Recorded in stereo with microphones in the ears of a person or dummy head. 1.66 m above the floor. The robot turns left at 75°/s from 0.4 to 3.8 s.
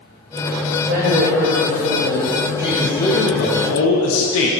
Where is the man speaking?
170° right, 0.8 m; by 4.5 s 100° left, 0.8 m.